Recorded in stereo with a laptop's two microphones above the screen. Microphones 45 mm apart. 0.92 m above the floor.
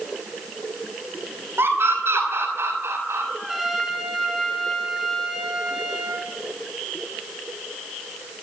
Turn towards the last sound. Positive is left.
turn(degrees=-5)  # may be behind; listen again after turning